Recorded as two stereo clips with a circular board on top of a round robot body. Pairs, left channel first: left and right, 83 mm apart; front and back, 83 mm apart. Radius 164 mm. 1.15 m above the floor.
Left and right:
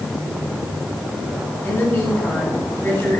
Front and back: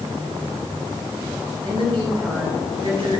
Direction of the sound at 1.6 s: 155° left.